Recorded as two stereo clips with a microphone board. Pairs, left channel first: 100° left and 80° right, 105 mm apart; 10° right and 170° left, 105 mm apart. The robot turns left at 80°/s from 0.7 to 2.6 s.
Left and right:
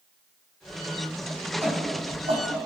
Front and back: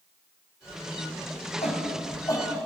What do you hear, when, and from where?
1.6 s a shout: 10° right, 4.5 m; by 2.5 s 75° right, 4.5 m